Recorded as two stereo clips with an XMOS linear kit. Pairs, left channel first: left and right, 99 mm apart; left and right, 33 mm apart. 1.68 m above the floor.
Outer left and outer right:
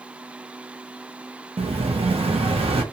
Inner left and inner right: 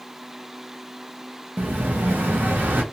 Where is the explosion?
75° right (ahead or behind), 0.6 m.